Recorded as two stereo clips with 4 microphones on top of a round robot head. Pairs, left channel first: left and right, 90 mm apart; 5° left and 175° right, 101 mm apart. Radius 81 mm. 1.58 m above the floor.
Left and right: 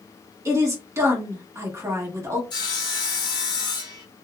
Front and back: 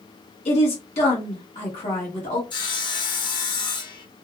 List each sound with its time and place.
0.5 s a woman speaking: 30° right, 1.2 m
2.5 s sawing: 45° left, 0.8 m